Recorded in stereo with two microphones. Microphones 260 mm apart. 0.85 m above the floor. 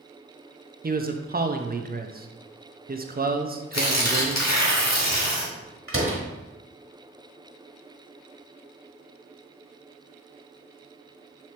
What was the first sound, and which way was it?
A man speaking, 35° right (ahead or behind).